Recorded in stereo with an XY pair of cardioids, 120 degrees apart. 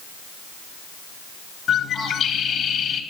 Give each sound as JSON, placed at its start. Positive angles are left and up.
{"t": 1.7, "sound": "a bird", "azimuth_deg": 55, "distance_m": 2.5}